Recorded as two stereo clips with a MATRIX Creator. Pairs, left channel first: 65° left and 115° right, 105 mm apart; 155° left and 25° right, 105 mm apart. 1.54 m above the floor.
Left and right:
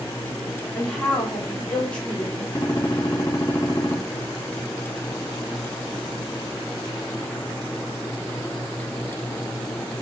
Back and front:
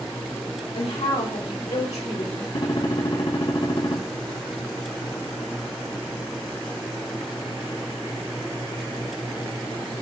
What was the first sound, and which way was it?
A woman speaking, 150° left.